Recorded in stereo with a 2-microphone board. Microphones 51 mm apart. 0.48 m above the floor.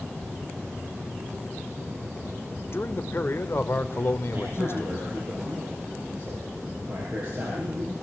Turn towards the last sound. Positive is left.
turn(degrees=-30)  # may be behind; listen again after turning